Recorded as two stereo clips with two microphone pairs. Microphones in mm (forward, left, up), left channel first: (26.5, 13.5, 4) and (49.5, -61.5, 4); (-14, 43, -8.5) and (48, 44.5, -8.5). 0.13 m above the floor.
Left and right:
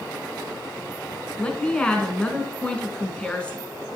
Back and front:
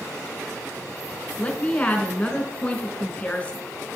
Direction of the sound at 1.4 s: 160° left.